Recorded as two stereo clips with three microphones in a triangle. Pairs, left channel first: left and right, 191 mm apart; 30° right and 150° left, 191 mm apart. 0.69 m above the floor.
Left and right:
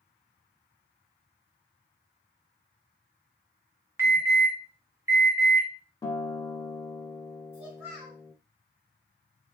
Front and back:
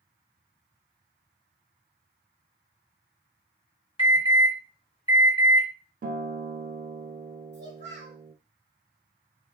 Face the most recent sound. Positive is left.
turn(degrees=-15)